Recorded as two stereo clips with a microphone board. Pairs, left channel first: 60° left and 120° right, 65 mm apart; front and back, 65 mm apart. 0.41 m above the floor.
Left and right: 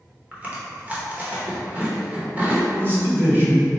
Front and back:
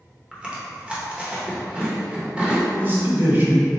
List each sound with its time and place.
0.3 s chewing: 130° right, 0.9 m
2.8 s a man speaking: 145° right, 1.3 m